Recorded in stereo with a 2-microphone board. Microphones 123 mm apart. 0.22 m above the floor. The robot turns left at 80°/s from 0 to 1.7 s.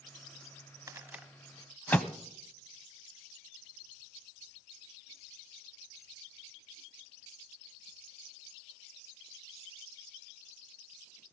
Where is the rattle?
25° right (ahead or behind), 0.6 m; by 2.1 s 10° left (ahead or behind), 0.6 m.